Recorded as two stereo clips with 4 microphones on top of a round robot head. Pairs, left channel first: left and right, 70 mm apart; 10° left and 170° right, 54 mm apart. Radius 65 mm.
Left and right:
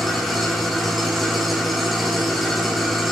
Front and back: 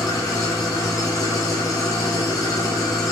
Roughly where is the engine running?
Ahead.